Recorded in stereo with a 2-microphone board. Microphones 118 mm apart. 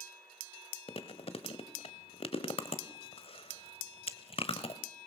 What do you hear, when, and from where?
0.9 s chewing: 60° left (ahead or behind), 1.2 m